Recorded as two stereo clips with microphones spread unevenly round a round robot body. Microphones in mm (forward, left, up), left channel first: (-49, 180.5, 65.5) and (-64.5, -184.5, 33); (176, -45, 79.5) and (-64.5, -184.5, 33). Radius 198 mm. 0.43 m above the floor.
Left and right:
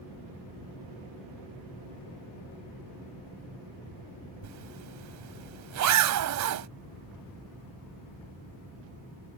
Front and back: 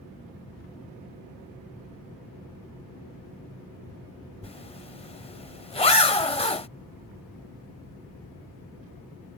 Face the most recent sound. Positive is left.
turn(degrees=-45)